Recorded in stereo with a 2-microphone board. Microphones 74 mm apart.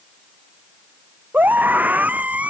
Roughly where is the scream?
Right.